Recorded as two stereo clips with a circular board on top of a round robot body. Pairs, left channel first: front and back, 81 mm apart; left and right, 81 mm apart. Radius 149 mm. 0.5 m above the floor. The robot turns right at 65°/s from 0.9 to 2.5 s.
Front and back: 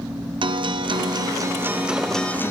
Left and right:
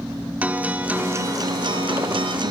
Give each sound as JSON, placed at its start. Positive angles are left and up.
{"t": 0.4, "sound": "a guitar", "azimuth_deg": -165, "distance_m": 0.7}